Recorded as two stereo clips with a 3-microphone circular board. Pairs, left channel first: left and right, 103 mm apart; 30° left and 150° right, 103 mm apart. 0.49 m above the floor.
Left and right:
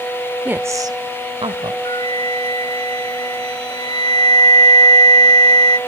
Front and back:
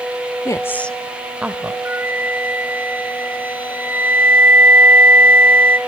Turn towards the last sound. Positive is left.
turn(degrees=140)